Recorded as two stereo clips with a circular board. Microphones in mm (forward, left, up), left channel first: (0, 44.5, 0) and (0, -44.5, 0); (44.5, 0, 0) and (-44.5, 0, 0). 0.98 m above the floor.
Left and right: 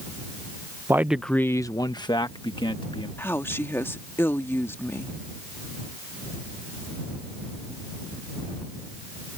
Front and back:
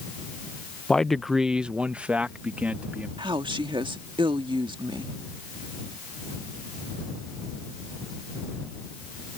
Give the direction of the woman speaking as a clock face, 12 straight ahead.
7 o'clock.